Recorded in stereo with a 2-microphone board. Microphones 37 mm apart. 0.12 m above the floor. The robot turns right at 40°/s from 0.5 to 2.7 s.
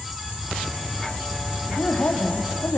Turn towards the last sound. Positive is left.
turn(degrees=90)